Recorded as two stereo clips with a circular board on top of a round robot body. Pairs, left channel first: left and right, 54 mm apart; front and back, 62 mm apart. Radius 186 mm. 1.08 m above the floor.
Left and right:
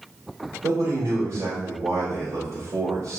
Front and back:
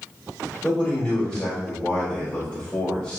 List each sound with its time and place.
0.6 s a man speaking: 80° right, 3.5 m